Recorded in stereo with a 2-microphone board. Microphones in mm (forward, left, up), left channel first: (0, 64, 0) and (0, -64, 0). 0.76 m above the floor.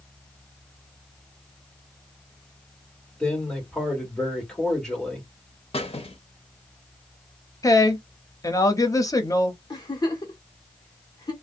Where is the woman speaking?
30° left (ahead or behind), 0.6 m.